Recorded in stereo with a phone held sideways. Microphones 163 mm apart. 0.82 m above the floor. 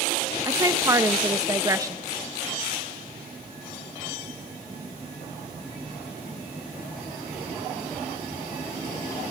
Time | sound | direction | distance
0.5 | a woman speaking | 20° right (ahead or behind) | 0.6 m